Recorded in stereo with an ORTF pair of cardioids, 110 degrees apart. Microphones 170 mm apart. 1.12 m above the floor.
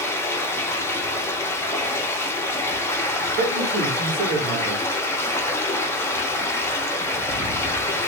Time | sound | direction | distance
0.0 | running water | 15° left | 0.8 m
3.4 | a man speaking | 70° right | 1.2 m